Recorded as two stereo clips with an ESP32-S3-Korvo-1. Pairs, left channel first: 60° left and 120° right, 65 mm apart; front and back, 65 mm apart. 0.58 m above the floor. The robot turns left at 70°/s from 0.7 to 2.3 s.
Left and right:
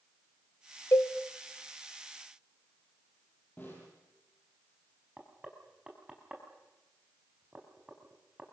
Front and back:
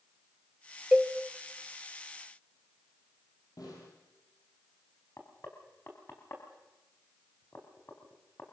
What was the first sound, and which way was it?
A cowbell, 100° left.